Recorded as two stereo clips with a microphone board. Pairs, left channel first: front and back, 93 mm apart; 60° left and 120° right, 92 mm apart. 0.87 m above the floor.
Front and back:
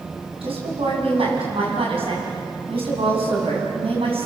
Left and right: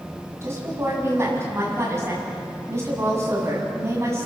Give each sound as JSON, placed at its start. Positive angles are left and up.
{"t": 0.4, "sound": "a woman speaking", "azimuth_deg": 180, "distance_m": 7.0}